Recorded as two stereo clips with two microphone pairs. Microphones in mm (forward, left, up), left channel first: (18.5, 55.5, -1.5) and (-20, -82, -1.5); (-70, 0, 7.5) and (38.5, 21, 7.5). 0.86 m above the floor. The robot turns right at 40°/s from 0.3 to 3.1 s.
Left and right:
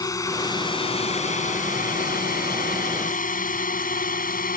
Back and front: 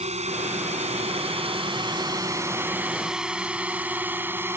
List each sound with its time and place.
0.0 s a drone: 10° left; by 4.6 s 80° left